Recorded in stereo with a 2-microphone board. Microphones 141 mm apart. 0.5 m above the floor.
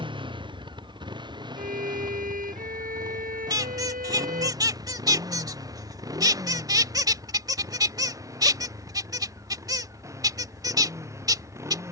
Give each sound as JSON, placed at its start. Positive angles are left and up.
{"t": 0.0, "sound": "a motorcycle", "side_deg": -35}
{"t": 1.6, "sound": "a violin", "side_deg": -85}
{"t": 3.5, "sound": "a squeak", "side_deg": -25}